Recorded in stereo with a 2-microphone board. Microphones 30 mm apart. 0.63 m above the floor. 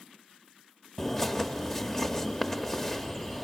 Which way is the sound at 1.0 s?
15° left (ahead or behind).